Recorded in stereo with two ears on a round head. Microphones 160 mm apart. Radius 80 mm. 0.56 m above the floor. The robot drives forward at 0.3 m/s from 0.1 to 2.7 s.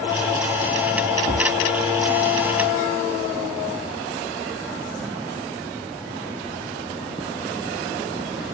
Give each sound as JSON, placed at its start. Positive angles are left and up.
{"t": 1.3, "sound": "a thud", "side_deg": 5, "distance_m": 1.4}